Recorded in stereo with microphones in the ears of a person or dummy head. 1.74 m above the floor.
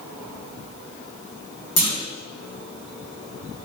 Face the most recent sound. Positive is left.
turn(degrees=50)  # may be behind; listen again after turning